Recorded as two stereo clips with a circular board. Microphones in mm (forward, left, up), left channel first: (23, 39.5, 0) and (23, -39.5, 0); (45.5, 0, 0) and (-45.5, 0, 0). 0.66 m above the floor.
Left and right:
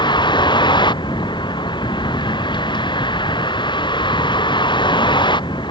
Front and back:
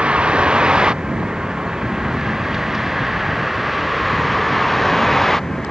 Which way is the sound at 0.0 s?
100° left.